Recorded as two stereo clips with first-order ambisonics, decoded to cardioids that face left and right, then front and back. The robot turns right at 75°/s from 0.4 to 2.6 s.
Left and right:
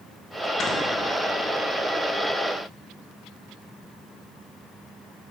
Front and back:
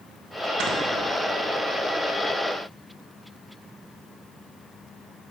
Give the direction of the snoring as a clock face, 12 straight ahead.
7 o'clock.